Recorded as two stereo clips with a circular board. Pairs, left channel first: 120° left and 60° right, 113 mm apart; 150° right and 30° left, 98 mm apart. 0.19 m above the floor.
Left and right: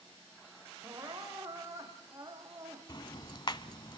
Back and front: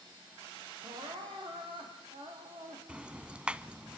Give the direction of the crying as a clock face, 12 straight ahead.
12 o'clock.